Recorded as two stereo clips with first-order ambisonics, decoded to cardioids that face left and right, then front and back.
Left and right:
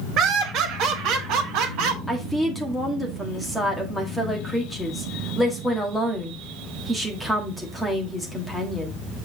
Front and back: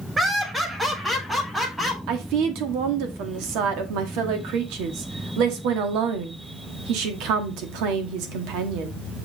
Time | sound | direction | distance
0.2 | laughter | 105° right | 1.3 m
2.1 | a woman speaking | straight behind | 1.6 m